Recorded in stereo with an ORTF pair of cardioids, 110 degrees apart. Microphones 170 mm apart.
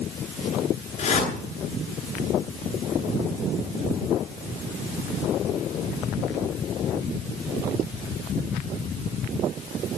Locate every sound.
1.0 s a whoosh: 40° left, 9 m